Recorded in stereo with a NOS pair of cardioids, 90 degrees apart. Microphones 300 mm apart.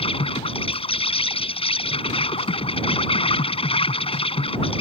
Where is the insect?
20° left.